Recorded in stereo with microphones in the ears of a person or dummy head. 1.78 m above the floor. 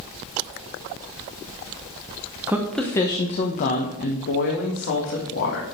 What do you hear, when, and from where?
2.5 s a woman speaking: 10° right (ahead or behind), 1.0 m; by 5.6 s 70° left (ahead or behind), 3 m